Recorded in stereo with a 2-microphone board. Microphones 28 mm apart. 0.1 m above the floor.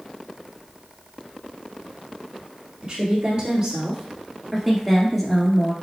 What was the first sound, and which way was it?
A woman speaking, 35° right (ahead or behind).